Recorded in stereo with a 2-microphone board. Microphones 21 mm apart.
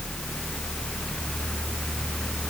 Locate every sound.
Only background noise.